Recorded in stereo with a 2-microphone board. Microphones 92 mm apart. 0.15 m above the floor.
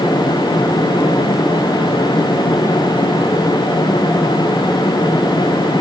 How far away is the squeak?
No squeak in this recording.